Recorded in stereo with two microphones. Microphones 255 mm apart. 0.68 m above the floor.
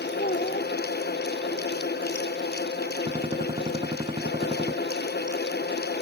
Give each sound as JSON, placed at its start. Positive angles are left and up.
{"t": 0.2, "sound": "a child speaking", "side_deg": 35}
{"t": 3.1, "sound": "a gunshot", "side_deg": -20}